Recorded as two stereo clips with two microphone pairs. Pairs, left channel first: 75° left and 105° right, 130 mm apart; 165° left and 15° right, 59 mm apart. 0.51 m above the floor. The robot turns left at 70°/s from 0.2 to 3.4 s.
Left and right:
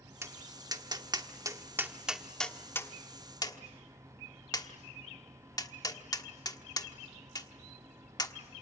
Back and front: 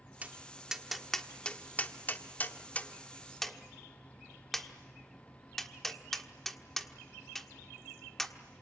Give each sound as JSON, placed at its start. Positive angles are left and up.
{"t": 0.2, "sound": "tapping", "azimuth_deg": -55, "distance_m": 1.3}